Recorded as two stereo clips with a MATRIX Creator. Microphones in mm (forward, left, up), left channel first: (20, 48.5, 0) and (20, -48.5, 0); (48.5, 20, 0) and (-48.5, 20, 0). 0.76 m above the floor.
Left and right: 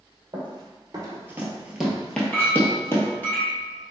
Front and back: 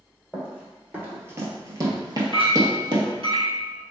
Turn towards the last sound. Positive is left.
turn(degrees=160)